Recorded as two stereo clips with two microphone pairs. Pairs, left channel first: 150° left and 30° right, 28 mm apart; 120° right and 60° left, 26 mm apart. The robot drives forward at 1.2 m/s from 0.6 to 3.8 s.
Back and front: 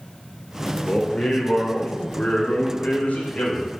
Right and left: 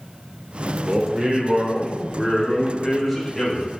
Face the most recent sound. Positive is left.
turn(degrees=145)